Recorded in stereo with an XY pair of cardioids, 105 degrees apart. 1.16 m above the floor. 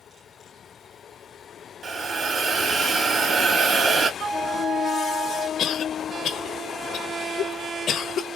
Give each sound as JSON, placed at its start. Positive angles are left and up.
{"t": 1.8, "sound": "a hiss", "azimuth_deg": -45, "distance_m": 2.0}
{"t": 4.2, "sound": "a flute", "azimuth_deg": -65, "distance_m": 1.0}
{"t": 5.6, "sound": "a cough", "azimuth_deg": 65, "distance_m": 0.7}